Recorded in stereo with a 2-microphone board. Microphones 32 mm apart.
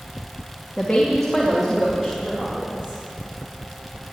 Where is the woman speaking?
20° left (ahead or behind), 2.0 m; by 3.0 s 15° right (ahead or behind), 4 m.